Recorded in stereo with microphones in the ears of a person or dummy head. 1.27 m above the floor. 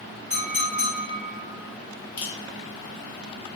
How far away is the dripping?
About 0.5 m.